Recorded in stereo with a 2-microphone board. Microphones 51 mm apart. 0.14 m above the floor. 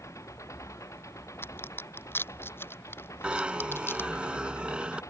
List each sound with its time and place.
0.0 s an engine running: 85° left
1.4 s a crack: 50° left (ahead or behind)
3.2 s a zipper: 20° right (ahead or behind)